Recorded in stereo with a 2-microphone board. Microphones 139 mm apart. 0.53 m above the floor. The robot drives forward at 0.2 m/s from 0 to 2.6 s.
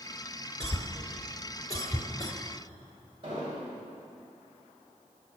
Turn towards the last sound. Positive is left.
turn(degrees=-35)  # may be behind; listen again after turning